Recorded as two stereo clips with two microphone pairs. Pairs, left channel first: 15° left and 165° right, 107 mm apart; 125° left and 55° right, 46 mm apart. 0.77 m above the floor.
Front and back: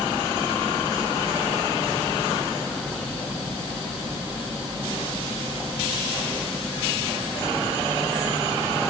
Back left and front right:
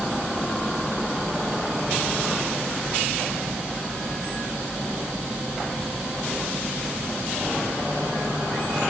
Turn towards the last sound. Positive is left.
No sound to turn to.